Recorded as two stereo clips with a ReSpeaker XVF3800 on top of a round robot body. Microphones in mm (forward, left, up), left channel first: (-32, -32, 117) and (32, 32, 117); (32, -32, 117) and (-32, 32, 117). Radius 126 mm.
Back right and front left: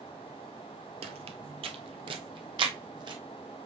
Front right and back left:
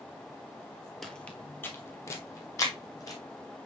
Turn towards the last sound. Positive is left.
turn(degrees=5)